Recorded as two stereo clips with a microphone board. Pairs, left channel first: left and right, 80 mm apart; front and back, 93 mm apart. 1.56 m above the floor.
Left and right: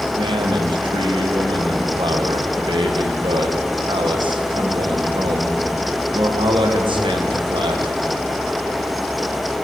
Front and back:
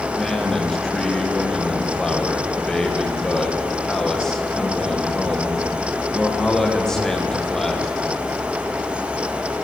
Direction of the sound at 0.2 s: 85° right.